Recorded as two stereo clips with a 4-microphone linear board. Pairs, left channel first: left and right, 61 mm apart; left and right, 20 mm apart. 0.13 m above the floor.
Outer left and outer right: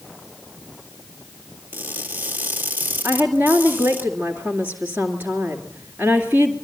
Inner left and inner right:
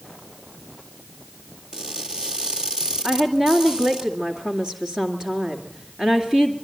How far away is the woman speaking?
About 2 m.